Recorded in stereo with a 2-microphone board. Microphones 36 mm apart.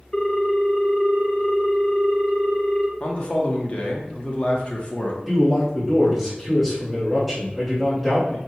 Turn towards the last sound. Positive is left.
turn(degrees=-5)  # may be behind; listen again after turning